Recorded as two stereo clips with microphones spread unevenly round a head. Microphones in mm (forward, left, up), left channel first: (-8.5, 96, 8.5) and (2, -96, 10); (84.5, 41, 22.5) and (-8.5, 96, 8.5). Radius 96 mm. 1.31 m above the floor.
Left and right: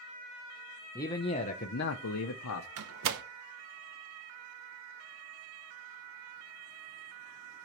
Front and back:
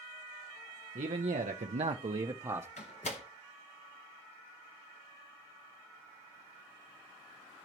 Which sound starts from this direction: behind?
A man speaking, at 0.9 s.